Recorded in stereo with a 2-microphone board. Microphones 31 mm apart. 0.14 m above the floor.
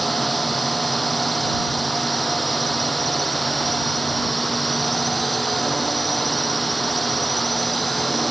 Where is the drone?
5° left (ahead or behind).